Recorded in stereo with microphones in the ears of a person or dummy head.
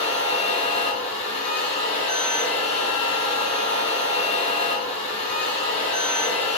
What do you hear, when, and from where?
0.0 s a machine running: 40° left (ahead or behind), 1.0 m